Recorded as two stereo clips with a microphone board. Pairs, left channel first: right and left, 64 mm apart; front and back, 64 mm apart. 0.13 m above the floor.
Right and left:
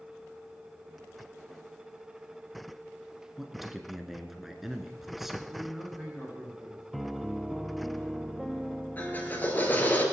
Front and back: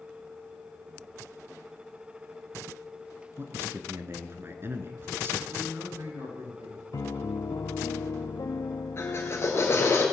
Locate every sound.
3.4 s a man speaking: 175° left, 1.3 m
5.5 s a man speaking: 170° left, 8 m
6.9 s a piano: straight ahead, 0.6 m
9.0 s a drill: 35° right, 2 m